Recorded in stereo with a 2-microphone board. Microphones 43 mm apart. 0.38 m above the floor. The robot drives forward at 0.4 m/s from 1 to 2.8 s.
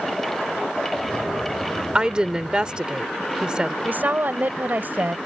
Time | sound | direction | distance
1.9 | a woman speaking | 20° right (ahead or behind) | ?
3.9 | a woman speaking | 45° right (ahead or behind) | ?